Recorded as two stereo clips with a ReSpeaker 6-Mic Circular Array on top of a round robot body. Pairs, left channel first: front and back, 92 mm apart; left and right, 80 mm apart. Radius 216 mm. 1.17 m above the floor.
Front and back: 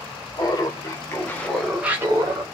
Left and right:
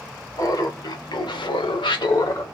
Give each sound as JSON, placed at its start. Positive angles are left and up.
{"t": 0.4, "sound": "laughter", "azimuth_deg": 45, "distance_m": 1.2}